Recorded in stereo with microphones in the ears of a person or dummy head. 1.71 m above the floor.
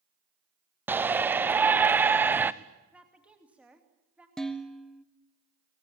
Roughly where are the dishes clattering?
Centre.